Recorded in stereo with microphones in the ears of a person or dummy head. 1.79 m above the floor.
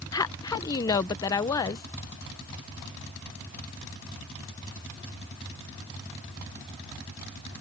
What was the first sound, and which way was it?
A woman speaking, 20° left (ahead or behind).